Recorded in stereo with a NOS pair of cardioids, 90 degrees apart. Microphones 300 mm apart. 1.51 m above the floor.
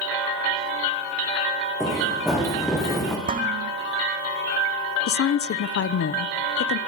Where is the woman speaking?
50° left, 0.9 m.